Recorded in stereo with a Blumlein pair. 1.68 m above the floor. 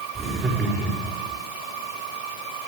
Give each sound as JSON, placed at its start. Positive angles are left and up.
{"t": 0.1, "sound": "laughter", "azimuth_deg": -25, "distance_m": 5.5}